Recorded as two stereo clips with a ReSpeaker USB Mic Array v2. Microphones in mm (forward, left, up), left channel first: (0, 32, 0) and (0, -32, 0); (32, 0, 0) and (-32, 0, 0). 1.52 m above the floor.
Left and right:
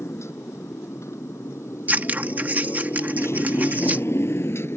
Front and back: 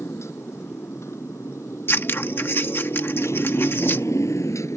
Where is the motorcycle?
45° left; by 4.8 s 40° left.